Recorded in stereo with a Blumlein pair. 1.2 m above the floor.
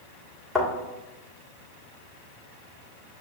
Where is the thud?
10° left, 1.6 m.